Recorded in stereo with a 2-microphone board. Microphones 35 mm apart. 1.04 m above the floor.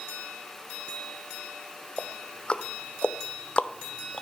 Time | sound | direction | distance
2.0 | ticking | 30° left (ahead or behind) | 0.9 m